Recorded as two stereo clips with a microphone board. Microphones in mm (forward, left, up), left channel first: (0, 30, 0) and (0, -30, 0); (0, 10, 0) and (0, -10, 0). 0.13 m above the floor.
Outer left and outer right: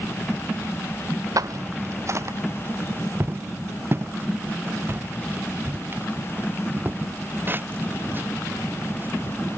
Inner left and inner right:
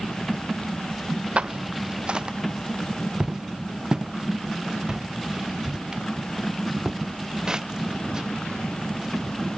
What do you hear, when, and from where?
1.4 s footsteps: 80° right; by 9.4 s 35° right (ahead or behind)